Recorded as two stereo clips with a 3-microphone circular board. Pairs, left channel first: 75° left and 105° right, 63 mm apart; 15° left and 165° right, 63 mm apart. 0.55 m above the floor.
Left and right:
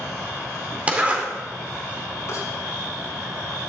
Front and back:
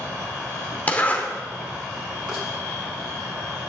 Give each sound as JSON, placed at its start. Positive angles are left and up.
{"t": 0.9, "sound": "a zipper", "azimuth_deg": -45, "distance_m": 2.0}
{"t": 2.3, "sound": "a rattle", "azimuth_deg": 115, "distance_m": 6.0}